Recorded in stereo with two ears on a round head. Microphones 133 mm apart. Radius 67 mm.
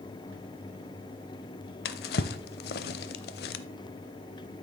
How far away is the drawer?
About 0.5 m.